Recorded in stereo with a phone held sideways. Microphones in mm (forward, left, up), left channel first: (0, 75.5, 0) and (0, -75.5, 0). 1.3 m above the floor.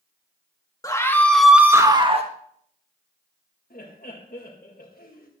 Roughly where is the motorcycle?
I don't hear a motorcycle.